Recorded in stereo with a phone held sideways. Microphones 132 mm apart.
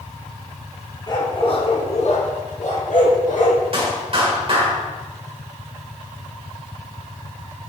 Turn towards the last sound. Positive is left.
turn(degrees=-45)  # may be behind; listen again after turning